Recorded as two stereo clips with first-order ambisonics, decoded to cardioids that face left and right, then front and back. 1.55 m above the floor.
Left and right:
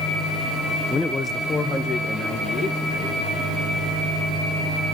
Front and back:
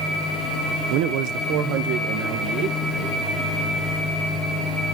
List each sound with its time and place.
0.9 s a man speaking: 170° left, 0.7 m; by 3.2 s 160° left, 2 m